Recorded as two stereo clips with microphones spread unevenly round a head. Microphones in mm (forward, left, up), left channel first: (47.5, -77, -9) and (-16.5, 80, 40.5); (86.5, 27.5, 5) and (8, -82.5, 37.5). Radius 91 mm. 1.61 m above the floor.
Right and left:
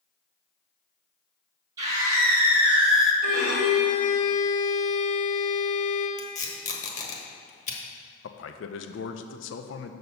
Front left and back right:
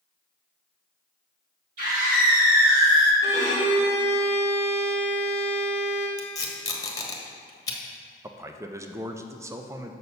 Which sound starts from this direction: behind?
A scream, at 1.8 s.